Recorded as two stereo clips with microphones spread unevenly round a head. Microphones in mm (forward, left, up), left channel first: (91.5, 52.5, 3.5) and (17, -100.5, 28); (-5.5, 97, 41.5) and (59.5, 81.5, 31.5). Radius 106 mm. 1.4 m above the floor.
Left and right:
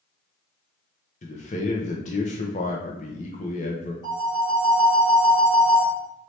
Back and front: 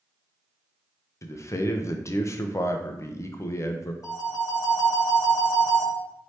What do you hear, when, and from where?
1.2 s a man speaking: 115° left, 0.6 m
4.0 s a phone ringing: 135° left, 2.5 m